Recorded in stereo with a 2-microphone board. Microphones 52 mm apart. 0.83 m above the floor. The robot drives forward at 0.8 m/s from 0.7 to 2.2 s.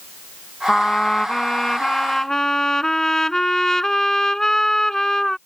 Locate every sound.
0.7 s a trumpet: 10° left (ahead or behind); by 5.4 s 5° left (ahead or behind)